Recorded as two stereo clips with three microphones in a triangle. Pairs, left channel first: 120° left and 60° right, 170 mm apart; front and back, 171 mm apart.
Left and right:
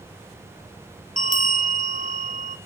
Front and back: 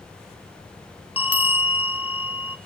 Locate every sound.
1.2 s a bell: 100° right, 1.4 m